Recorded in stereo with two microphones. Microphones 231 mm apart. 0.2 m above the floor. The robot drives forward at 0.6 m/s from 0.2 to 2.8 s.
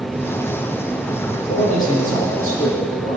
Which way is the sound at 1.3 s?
35° left (ahead or behind).